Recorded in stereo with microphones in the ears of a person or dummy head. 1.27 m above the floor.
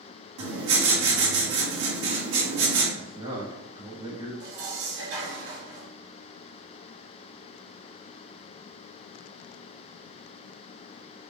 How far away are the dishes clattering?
About 2 m.